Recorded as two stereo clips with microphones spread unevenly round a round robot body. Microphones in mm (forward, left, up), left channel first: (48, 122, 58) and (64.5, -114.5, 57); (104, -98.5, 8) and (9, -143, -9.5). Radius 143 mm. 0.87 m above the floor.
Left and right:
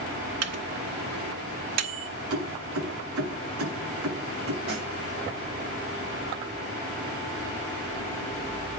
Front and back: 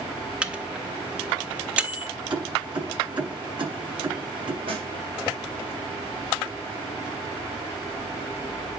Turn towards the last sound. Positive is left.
turn(degrees=-135)